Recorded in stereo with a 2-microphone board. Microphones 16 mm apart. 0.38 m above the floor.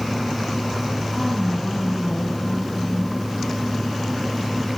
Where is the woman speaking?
65° left (ahead or behind), 3 m.